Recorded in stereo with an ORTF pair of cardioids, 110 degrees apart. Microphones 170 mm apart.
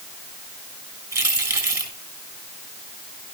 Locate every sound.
1.1 s keys jangling: 20° right, 6 m